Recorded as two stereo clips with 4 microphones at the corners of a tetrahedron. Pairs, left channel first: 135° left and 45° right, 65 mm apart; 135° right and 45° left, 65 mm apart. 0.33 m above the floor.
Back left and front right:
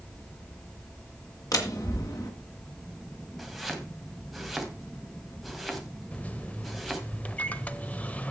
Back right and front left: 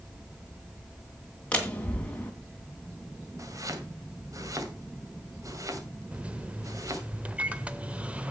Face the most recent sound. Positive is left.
turn(degrees=95)